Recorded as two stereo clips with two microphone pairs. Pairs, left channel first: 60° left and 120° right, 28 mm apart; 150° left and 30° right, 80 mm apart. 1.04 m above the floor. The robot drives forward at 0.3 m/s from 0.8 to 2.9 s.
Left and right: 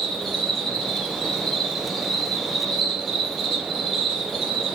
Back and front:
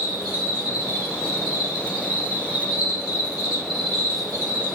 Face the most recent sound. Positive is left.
turn(degrees=145)